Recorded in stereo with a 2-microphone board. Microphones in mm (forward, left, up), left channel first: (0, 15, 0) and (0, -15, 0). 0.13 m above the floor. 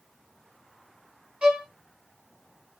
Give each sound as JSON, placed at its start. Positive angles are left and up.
{"t": 1.4, "sound": "a violin", "side_deg": -40, "distance_m": 2.5}